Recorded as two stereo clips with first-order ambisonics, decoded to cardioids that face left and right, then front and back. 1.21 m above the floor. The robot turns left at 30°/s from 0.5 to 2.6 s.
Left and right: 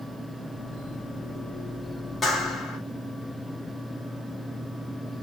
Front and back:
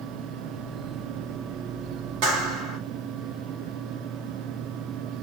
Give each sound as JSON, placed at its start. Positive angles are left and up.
{"t": 2.2, "sound": "a clap", "azimuth_deg": 170, "distance_m": 2.5}